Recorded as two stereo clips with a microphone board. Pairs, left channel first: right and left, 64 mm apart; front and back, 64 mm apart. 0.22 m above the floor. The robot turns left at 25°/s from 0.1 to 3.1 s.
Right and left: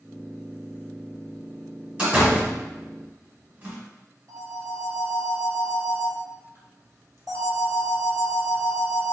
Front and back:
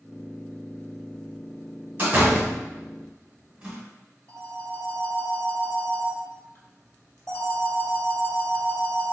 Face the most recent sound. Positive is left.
turn(degrees=60)